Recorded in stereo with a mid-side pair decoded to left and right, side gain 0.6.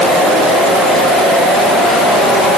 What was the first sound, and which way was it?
Only background noise.